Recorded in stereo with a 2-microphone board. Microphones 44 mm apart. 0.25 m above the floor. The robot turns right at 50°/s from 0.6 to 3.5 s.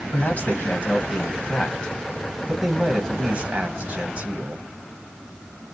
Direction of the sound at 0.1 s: 85° left.